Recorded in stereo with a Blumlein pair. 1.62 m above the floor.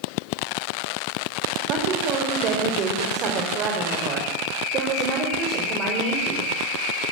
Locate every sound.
1.7 s a woman speaking: 35° right, 6 m